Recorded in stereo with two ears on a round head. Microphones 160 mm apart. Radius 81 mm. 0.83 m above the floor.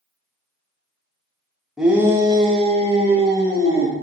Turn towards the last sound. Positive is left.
turn(degrees=-35)  # may be behind; listen again after turning